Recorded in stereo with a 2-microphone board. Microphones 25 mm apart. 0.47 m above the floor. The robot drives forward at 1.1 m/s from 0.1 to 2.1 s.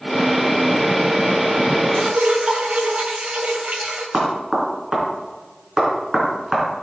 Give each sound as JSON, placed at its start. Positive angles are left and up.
{"t": 1.9, "sound": "dripping", "side_deg": -65, "distance_m": 2.0}
{"t": 4.1, "sound": "knocking", "side_deg": -25, "distance_m": 3.5}